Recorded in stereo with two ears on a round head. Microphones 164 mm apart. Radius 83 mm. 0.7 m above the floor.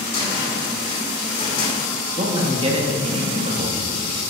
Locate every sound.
0.1 s a cupboard door: 30° left (ahead or behind), 2.5 m
2.2 s a man speaking: 30° right (ahead or behind), 1.2 m